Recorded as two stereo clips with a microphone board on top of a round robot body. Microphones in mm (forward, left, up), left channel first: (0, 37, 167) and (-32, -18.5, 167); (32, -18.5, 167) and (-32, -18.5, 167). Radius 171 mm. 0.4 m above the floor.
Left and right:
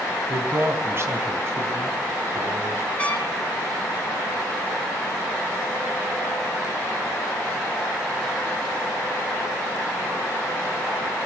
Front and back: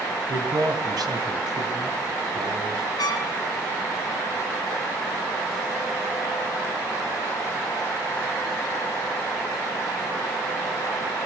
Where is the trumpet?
10° right, 2.5 m.